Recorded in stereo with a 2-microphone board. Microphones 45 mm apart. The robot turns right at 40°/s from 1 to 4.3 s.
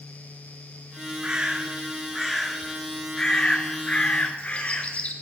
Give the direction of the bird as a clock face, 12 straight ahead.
2 o'clock.